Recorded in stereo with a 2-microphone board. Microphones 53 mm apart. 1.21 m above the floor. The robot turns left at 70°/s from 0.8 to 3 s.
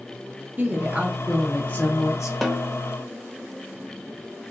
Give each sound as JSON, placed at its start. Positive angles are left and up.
{"t": 0.6, "sound": "a woman speaking", "azimuth_deg": -145, "distance_m": 0.9}
{"t": 2.4, "sound": "a snare drum", "side_deg": 0, "distance_m": 0.5}